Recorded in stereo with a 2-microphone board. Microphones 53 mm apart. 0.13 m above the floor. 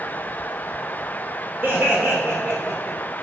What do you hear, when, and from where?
1.6 s laughter: 25° right (ahead or behind), 3 m; by 3.0 s 5° right (ahead or behind), 2 m